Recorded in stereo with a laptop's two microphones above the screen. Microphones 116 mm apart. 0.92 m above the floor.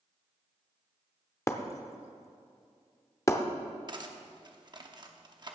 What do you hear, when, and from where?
1.5 s breaking glass: 25° left (ahead or behind), 0.6 m
3.9 s cutlery clinking: 40° right (ahead or behind), 0.7 m